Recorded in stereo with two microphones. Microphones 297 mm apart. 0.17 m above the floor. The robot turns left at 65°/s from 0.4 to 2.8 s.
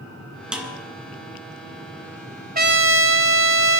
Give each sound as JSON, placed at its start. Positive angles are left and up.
{"t": 0.5, "sound": "a snare drum", "side_deg": -5, "distance_m": 2.0}
{"t": 2.5, "sound": "a trumpet", "side_deg": -30, "distance_m": 0.6}